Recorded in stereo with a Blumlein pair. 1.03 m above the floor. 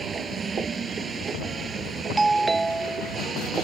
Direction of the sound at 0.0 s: 15° right.